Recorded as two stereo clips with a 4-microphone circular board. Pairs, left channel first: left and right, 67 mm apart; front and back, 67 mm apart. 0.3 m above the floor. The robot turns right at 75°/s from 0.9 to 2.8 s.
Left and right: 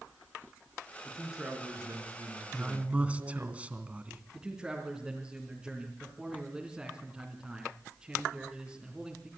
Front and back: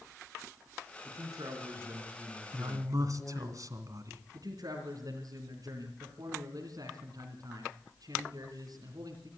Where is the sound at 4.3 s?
170° right, 3.5 m.